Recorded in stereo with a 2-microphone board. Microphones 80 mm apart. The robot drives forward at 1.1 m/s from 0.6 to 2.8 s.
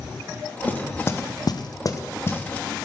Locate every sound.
0.7 s knocking: 25° left (ahead or behind), 1.1 m